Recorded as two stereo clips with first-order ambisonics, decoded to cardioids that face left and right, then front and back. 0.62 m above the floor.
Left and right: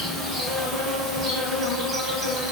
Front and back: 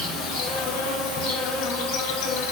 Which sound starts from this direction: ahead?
An insect, at 0.0 s.